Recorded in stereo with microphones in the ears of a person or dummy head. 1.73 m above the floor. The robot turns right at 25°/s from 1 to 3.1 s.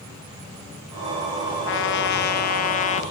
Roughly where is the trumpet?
Left.